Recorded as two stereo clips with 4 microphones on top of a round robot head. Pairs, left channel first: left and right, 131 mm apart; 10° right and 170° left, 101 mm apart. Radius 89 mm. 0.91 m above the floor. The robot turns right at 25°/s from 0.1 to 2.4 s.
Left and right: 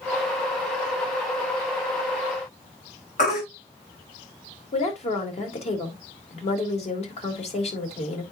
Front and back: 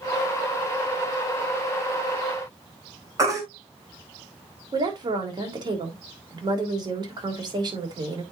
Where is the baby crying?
115° left, 4 m.